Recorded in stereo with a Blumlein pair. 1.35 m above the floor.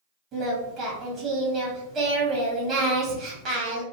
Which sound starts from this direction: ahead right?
Singing, at 0.3 s.